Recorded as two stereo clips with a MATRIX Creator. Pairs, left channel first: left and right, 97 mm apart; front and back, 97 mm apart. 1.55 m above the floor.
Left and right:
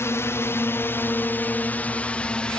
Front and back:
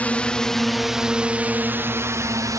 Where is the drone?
60° left; by 2.6 s 165° left.